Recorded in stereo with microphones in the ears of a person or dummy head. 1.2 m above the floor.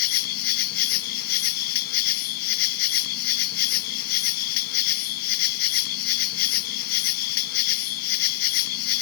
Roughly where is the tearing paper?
No tearing paper in this recording.